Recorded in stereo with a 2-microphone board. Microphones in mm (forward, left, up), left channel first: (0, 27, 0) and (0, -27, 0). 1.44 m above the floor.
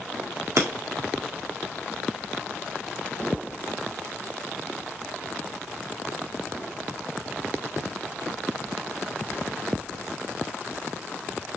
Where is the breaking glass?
65° right (ahead or behind), 1.9 m.